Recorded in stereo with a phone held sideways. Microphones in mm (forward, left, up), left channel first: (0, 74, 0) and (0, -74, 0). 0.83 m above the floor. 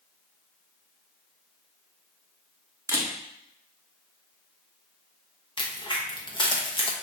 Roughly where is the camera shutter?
Centre.